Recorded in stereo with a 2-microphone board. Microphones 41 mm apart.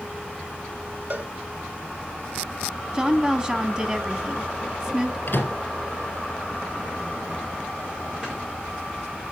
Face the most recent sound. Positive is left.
turn(degrees=-25)  # may be behind; listen again after turning